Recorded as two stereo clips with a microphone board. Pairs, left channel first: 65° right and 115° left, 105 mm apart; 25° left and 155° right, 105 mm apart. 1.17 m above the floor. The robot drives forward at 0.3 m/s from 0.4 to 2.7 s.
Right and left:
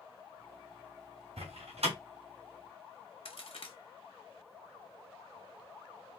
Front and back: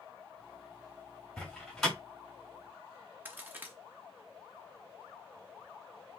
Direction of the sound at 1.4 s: 105° left.